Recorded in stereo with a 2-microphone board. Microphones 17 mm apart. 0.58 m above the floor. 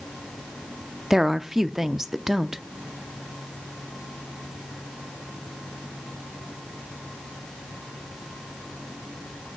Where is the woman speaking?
25° right (ahead or behind), 0.6 m.